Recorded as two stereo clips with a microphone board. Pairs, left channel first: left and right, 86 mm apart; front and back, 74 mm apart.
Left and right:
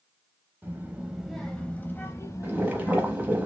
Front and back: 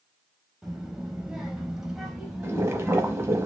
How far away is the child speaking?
About 0.9 m.